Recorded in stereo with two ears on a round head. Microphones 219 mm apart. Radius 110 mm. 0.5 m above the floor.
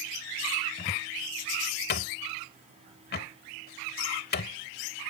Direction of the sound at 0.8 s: 40° left (ahead or behind).